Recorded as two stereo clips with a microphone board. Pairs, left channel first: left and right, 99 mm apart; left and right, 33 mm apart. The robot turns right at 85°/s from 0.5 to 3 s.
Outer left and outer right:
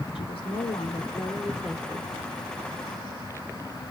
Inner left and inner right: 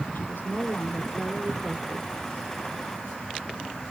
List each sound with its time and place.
0.1 s a woman speaking: 80° left, 3 m; by 2.1 s 145° right, 3 m